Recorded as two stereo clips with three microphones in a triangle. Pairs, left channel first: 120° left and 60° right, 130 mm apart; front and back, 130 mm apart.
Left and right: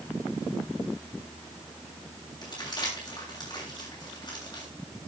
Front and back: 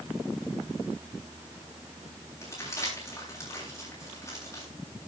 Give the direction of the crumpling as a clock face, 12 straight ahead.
10 o'clock.